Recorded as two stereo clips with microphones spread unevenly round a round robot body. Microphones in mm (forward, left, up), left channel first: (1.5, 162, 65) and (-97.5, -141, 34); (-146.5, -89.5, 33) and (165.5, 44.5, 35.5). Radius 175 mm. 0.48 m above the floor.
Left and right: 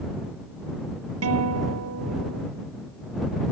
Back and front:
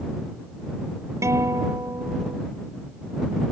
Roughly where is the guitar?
Ahead right.